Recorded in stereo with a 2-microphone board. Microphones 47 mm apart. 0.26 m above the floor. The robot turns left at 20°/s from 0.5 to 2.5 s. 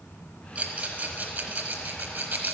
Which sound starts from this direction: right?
A rattle, at 0.6 s.